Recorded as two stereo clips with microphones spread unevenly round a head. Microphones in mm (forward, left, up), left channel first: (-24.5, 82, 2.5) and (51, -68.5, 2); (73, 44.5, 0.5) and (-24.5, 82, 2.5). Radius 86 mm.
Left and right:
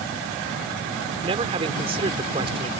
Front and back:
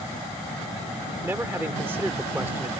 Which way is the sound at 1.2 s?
125° right.